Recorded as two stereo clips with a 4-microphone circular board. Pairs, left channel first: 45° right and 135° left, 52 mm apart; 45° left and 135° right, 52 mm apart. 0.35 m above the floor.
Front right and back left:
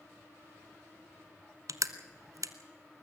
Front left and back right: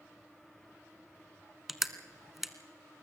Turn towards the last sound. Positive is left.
turn(degrees=140)